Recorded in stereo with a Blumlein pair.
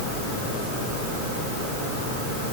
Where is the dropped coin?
No dropped coin in this recording.